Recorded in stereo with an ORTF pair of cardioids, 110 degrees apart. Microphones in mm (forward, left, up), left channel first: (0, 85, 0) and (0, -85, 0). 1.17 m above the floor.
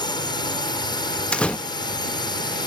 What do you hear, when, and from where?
0.0 s a drone: 25° left
1.3 s a door slam: 5° left